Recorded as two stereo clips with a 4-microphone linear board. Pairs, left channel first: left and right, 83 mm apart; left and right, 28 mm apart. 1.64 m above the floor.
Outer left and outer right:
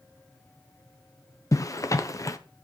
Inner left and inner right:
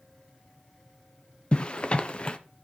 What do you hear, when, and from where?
1.5 s a zipper: 40° left (ahead or behind), 0.7 m